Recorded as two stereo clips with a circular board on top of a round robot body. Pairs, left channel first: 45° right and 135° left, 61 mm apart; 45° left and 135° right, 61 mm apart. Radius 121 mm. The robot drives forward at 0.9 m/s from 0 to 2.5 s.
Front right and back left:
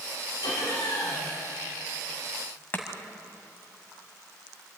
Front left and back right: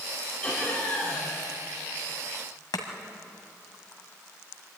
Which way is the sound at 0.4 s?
25° right.